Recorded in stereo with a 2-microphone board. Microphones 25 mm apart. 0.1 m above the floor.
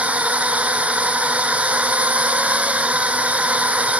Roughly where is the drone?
Right.